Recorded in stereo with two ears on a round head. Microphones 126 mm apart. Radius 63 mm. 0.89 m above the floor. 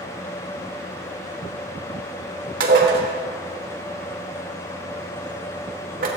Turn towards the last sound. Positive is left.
turn(degrees=-70)  # may be behind; listen again after turning